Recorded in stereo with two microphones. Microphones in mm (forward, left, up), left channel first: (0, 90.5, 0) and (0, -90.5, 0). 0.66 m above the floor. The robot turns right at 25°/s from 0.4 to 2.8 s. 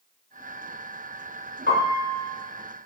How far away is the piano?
About 1.0 m.